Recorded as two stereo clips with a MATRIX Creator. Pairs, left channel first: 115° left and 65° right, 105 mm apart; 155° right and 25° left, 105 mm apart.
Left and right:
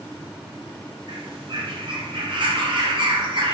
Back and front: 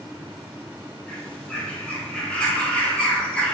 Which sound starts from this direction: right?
A bird, at 1.1 s.